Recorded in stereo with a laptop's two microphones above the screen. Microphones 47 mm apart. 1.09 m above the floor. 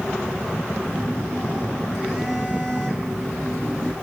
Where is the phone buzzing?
15° left (ahead or behind), 5 m.